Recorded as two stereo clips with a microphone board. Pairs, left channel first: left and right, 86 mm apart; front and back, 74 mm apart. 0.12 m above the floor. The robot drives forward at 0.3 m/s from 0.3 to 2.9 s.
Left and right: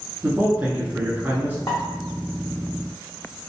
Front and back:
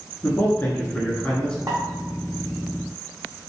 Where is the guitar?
No guitar in this recording.